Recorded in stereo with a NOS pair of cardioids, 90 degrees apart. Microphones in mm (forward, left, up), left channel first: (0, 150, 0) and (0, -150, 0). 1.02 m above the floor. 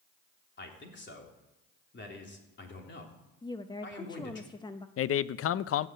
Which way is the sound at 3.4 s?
15° left.